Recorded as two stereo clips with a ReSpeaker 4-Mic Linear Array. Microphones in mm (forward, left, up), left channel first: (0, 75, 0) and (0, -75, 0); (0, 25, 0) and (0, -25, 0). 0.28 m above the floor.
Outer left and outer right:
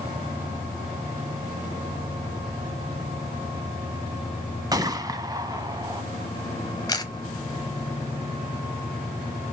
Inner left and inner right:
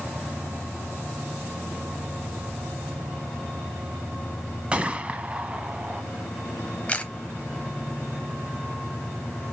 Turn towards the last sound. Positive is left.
turn(degrees=25)  # may be behind; listen again after turning